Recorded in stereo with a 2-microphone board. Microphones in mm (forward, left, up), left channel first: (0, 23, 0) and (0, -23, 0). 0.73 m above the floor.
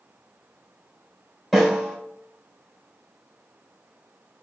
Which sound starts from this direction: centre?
A snare drum, at 1.5 s.